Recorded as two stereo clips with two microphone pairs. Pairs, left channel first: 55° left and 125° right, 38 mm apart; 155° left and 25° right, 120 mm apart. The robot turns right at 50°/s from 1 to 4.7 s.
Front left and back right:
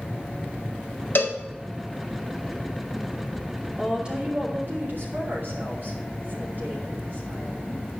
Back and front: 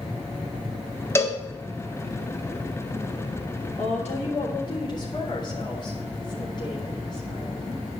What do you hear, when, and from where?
1.1 s a cowbell: 85° left, 1.4 m; by 1.4 s 95° left, 1.4 m
3.8 s a woman speaking: 160° left, 3.5 m; by 7.8 s 155° right, 3.5 m